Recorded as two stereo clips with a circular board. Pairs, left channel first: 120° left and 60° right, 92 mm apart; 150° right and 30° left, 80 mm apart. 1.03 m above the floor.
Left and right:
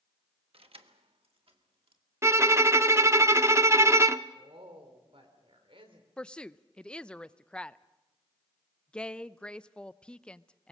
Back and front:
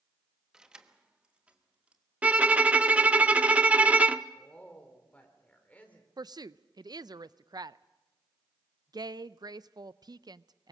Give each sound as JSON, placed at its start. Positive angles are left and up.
{"t": 0.5, "sound": "keys jangling", "azimuth_deg": -55, "distance_m": 1.0}
{"t": 2.2, "sound": "a violin", "azimuth_deg": -30, "distance_m": 0.6}
{"t": 4.3, "sound": "a woman speaking", "azimuth_deg": -80, "distance_m": 3.5}
{"t": 6.2, "sound": "a woman speaking", "azimuth_deg": 40, "distance_m": 0.5}